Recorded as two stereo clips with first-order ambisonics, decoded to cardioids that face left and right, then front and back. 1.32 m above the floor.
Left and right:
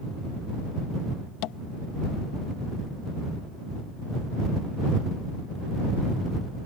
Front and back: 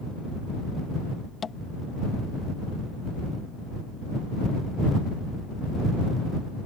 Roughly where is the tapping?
Left.